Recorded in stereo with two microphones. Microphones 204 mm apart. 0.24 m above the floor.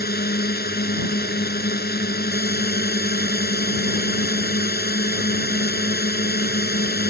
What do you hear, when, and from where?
0.0 s a drone: 50° left (ahead or behind)